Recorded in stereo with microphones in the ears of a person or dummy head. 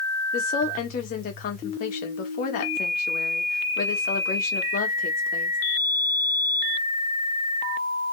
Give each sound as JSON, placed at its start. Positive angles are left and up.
{"t": 0.3, "sound": "a woman speaking", "side_deg": 55, "distance_m": 1.6}